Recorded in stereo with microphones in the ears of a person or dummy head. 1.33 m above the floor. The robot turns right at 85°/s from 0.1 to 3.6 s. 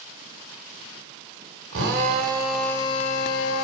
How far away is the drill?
About 2.5 m.